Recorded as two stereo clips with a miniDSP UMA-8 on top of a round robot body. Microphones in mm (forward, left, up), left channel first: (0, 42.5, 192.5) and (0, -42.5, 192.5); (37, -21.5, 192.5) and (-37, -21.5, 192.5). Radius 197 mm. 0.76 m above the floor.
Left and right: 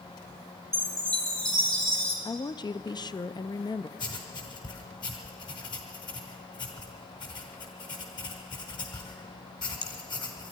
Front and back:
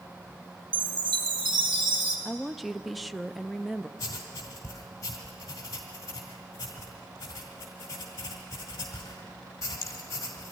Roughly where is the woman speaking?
Left.